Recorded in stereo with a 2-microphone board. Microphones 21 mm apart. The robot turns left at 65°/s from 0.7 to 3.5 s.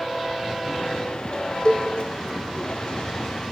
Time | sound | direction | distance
1.6 | a cowbell | 40° left (ahead or behind) | 3 m